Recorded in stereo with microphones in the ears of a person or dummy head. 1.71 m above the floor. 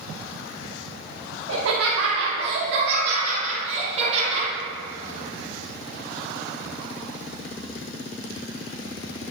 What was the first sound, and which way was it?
Laughter, 65° right (ahead or behind).